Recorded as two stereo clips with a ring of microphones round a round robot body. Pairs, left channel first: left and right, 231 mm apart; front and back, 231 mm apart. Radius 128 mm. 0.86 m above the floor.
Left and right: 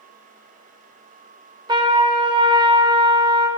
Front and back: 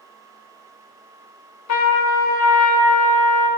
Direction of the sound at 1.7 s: 20° right.